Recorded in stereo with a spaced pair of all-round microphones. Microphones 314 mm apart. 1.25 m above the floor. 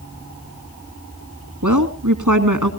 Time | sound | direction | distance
1.6 | a woman speaking | 65° right (ahead or behind) | 2.0 m